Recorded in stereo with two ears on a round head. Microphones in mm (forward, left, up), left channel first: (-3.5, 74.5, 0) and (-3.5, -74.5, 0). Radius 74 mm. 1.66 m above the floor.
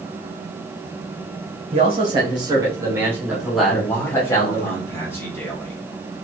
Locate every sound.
1.7 s a man speaking: 40° right (ahead or behind), 2.0 m; by 4.7 s 30° left (ahead or behind), 1.4 m
3.7 s a man speaking: 15° left (ahead or behind), 1.8 m